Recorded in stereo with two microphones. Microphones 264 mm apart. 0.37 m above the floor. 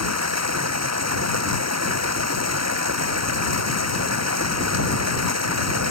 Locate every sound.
0.0 s running water: 80° right